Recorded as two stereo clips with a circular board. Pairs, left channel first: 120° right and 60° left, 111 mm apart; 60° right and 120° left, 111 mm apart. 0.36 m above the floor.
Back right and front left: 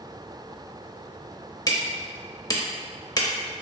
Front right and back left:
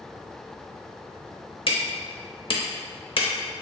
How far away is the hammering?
About 0.7 m.